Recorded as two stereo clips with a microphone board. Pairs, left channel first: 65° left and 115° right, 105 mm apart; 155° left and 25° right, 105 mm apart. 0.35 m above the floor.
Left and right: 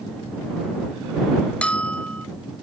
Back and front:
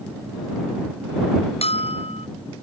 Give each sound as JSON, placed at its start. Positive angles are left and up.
{"t": 1.6, "sound": "a bell", "azimuth_deg": 145}